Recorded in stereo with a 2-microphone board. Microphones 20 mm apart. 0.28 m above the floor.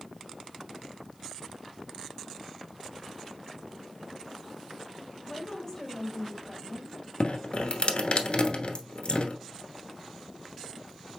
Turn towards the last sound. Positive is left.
turn(degrees=50)  # may be behind; listen again after turning